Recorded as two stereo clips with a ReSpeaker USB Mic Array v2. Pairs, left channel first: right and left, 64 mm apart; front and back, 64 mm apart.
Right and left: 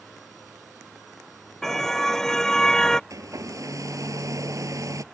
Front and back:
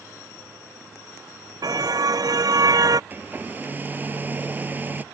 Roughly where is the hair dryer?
Behind left.